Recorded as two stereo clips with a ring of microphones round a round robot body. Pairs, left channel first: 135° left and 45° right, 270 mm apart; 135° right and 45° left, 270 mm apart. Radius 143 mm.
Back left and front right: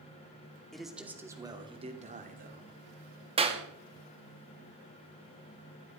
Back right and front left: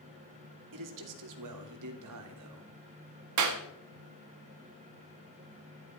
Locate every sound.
0.7 s a man speaking: 45° left, 2.5 m; by 2.7 s 10° left, 3 m
3.4 s a clap: 25° left, 1.8 m